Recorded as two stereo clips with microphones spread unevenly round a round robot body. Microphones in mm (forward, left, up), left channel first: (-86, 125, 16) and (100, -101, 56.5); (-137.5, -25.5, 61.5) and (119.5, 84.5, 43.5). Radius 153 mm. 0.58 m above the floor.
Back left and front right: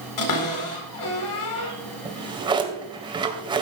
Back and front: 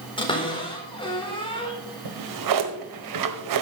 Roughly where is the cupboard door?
Behind left.